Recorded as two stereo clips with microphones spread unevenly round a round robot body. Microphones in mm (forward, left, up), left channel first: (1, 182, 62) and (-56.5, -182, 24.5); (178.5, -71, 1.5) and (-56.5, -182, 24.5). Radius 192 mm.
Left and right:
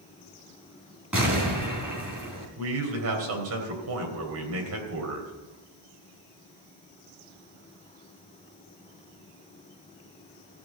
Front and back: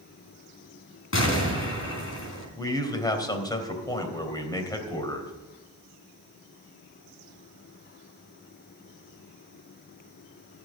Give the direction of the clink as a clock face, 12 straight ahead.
I don't hear a clink.